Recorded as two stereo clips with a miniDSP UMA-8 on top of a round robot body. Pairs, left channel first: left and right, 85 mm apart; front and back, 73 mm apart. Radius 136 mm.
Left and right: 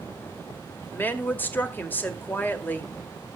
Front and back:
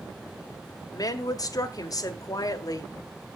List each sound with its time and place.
0.9 s a woman speaking: 25° left, 1.7 m